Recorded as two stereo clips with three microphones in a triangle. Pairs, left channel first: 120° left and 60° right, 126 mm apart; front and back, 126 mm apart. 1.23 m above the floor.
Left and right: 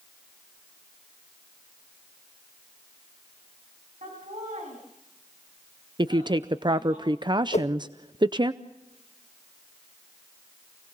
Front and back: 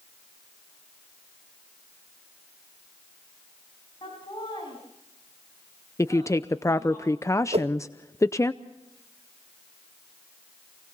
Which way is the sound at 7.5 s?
145° left.